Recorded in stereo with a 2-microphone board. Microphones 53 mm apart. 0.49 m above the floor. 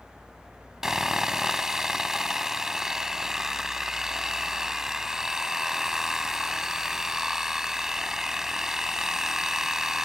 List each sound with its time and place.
0.8 s sawing: 10° right (ahead or behind)